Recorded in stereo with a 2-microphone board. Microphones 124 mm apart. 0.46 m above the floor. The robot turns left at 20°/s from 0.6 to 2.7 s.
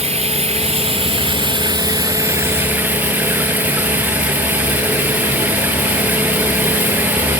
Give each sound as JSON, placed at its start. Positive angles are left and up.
{"t": 0.0, "sound": "running water", "azimuth_deg": -125}